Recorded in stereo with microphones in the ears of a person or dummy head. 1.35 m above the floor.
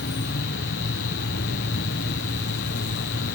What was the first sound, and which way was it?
An insect, 50° left (ahead or behind).